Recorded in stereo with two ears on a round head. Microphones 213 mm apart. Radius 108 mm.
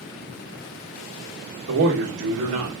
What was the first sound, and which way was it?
A man speaking, 55° right (ahead or behind).